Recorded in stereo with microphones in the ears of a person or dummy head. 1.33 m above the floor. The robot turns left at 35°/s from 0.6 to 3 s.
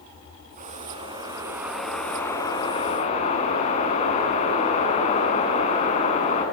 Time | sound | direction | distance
0.6 | a whoosh | 140° right | 7.5 m